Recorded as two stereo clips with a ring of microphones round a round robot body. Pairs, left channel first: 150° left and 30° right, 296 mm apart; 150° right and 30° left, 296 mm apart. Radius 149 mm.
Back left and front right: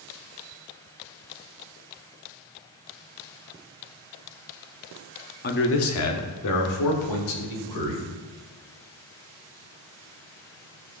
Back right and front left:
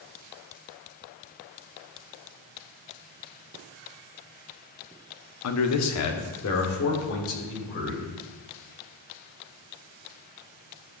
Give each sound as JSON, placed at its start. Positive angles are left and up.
{"t": 5.4, "sound": "a man speaking", "azimuth_deg": -160, "distance_m": 0.9}